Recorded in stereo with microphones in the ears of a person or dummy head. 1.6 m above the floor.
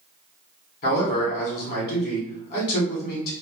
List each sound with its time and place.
0.8 s a man speaking: 55° left (ahead or behind), 1.3 m